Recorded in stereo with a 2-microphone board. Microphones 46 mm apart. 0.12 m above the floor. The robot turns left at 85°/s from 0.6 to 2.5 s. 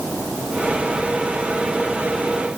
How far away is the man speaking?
I don't hear a man speaking.